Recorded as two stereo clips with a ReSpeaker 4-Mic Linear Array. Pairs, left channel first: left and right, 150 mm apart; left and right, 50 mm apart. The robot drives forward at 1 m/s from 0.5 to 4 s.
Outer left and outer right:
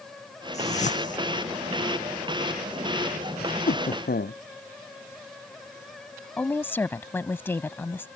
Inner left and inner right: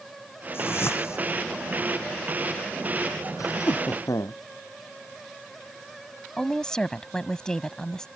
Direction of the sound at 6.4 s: 15° left (ahead or behind).